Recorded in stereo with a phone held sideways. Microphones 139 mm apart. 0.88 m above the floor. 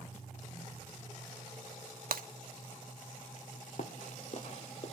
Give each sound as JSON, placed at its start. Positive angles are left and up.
{"t": 2.1, "sound": "breaking glass", "side_deg": -85, "distance_m": 0.7}
{"t": 3.8, "sound": "running footsteps", "side_deg": 60, "distance_m": 1.6}